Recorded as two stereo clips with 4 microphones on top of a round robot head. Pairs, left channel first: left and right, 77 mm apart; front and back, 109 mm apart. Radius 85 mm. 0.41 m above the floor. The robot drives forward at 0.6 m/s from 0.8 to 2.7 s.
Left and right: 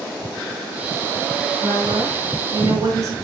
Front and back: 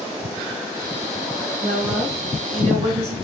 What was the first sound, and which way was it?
A woman speaking, 130° right.